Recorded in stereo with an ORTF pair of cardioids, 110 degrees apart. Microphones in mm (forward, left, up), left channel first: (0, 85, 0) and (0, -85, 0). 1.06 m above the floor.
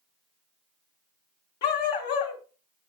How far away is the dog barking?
About 2.5 m.